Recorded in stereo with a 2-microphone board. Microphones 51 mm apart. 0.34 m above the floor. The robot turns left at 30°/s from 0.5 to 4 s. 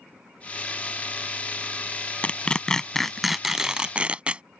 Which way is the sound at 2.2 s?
30° left (ahead or behind).